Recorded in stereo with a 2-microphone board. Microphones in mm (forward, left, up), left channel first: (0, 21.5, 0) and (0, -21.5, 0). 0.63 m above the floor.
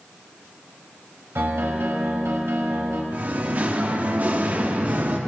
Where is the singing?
40° right (ahead or behind), 0.8 m.